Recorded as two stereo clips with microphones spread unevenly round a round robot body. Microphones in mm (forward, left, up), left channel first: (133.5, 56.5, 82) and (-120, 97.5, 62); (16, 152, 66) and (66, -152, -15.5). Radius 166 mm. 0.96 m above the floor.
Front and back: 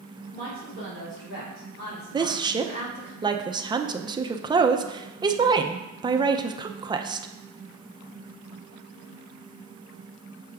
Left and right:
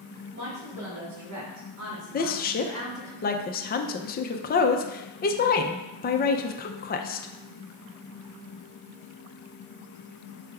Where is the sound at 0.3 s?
75° right, 3 m; by 3.1 s 5° right, 2 m.